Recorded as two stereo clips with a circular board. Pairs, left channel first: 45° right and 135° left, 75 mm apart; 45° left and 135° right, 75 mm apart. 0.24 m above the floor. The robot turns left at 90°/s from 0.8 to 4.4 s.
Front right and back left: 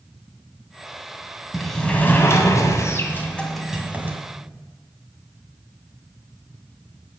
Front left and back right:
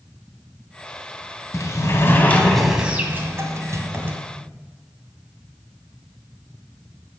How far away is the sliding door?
About 1.9 m.